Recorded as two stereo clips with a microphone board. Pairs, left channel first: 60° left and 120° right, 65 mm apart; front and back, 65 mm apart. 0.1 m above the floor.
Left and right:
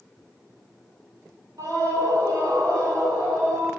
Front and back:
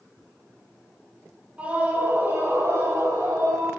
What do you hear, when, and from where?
1.6 s a scream: 115° right, 3 m; by 3.7 s 160° right, 5 m